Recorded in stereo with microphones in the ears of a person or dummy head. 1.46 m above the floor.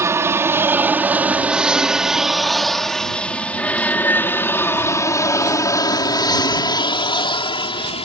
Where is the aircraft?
15° right (ahead or behind); by 8.1 s 30° left (ahead or behind).